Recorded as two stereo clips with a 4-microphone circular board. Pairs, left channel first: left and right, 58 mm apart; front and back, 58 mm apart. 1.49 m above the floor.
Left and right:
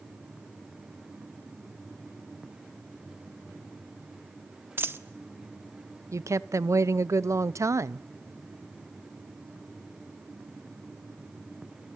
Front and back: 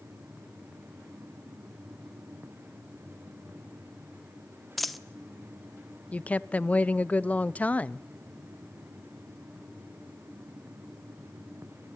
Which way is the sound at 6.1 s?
65° right.